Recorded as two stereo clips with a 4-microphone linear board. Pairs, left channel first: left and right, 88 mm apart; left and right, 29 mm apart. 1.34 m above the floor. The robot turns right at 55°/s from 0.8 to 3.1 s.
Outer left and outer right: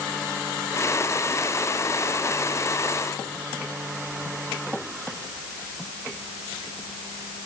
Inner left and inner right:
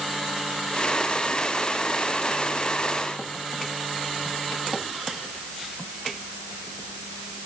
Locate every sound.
Only background noise.